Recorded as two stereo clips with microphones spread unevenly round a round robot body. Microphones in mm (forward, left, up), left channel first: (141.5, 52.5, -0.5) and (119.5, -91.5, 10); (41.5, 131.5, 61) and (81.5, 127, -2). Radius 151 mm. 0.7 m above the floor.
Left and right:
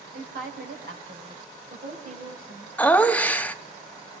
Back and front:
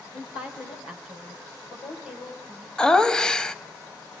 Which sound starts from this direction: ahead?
Laughter, at 2.8 s.